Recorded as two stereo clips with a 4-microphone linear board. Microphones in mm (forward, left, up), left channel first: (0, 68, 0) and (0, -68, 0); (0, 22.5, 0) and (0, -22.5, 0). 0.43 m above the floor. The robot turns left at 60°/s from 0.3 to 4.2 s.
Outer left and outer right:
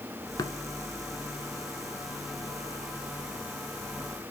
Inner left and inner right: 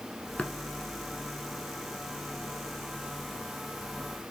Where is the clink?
I don't hear a clink.